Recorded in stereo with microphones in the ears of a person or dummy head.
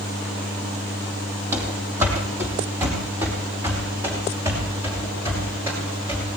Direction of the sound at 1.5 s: 10° right (ahead or behind).